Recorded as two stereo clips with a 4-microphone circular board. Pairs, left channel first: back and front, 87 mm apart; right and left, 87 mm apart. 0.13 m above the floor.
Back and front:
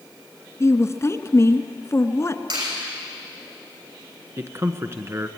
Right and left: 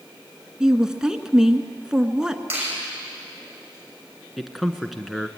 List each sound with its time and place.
0.6 s a woman speaking: 165° left, 1.3 m
2.5 s a finger snap: 25° left, 6 m
4.4 s a man speaking: 5° left, 1.4 m